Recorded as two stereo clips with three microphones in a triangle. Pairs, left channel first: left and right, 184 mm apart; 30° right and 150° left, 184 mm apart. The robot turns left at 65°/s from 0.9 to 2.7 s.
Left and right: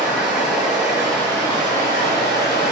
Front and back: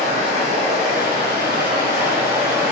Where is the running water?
170° right, 2.0 m; by 2.7 s 70° left, 2.0 m.